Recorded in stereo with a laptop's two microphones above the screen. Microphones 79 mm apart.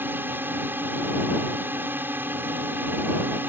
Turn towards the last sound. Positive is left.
turn(degrees=-25)  # may be behind; listen again after turning